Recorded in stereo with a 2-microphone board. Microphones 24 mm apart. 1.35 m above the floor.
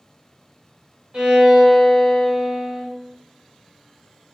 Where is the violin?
70° right (ahead or behind), 1.5 m.